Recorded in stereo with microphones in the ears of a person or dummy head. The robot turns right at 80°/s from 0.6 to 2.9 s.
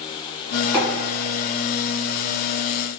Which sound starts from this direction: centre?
Tapping, at 0.7 s.